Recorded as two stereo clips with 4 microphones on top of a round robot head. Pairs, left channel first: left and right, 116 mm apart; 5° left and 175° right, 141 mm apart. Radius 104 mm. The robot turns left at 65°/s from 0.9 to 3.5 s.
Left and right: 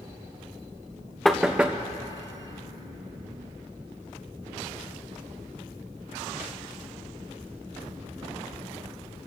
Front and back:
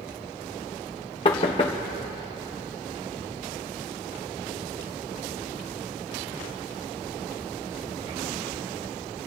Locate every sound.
1.2 s knocking: 5° left, 0.6 m; by 1.8 s 30° right, 0.6 m